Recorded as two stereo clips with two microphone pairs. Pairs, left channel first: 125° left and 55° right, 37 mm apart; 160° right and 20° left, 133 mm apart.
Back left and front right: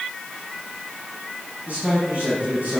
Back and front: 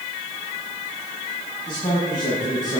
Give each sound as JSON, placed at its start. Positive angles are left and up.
{"t": 1.7, "sound": "a man speaking", "azimuth_deg": -105, "distance_m": 5.5}